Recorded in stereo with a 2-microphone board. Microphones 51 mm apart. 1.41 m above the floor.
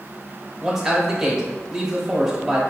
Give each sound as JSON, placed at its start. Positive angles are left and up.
{"t": 0.6, "sound": "a man speaking", "side_deg": -10, "distance_m": 0.9}